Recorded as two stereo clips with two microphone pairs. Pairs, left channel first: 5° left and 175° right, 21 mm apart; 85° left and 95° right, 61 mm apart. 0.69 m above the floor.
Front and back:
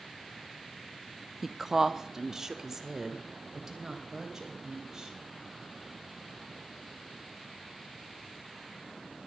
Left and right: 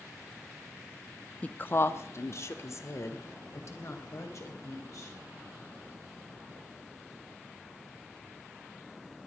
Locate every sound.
1.4 s a woman speaking: 115° left, 0.6 m; by 5.2 s 120° left, 4.5 m